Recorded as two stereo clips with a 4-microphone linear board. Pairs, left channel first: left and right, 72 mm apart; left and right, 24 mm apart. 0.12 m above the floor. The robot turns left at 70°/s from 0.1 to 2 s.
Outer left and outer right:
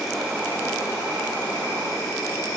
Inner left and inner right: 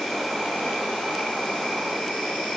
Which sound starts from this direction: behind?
An insect, at 0.0 s.